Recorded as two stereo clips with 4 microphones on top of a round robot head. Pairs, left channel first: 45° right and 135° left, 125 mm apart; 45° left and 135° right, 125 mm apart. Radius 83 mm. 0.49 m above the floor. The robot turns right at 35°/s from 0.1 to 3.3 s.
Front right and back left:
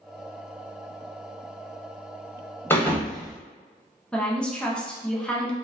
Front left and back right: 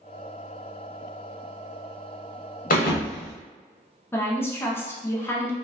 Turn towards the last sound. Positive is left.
turn(degrees=20)